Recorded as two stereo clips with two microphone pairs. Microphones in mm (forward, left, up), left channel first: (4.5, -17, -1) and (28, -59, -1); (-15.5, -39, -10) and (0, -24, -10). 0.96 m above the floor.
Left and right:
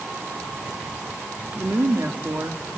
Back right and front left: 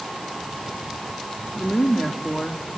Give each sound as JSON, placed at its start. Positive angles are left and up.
{"t": 1.6, "sound": "a woman speaking", "azimuth_deg": -90, "distance_m": 1.9}